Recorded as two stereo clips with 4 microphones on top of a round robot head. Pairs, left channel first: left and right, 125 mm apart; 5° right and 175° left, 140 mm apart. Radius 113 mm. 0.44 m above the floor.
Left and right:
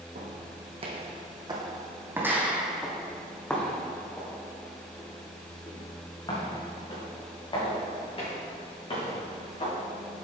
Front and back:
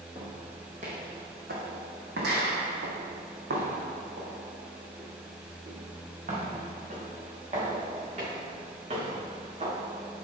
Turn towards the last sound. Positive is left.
turn(degrees=130)